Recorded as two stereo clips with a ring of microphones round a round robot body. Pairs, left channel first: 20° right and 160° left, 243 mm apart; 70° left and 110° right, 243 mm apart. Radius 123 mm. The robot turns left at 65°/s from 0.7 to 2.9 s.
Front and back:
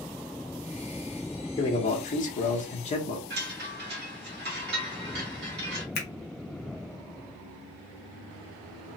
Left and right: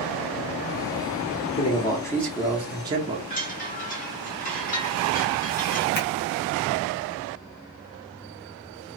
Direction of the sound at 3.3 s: 120° left.